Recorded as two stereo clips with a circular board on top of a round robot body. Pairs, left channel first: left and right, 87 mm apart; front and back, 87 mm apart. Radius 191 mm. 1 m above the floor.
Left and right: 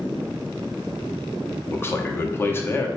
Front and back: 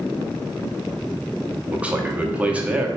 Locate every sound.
1.7 s a man speaking: 120° left, 0.7 m